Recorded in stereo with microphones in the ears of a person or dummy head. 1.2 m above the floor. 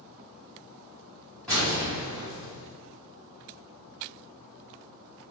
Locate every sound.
1.5 s an explosion: 5° left (ahead or behind), 1.7 m